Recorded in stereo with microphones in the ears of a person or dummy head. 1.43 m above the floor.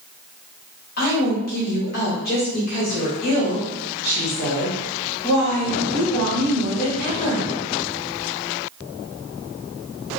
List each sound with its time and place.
1.0 s a woman speaking: 50° left (ahead or behind), 1.6 m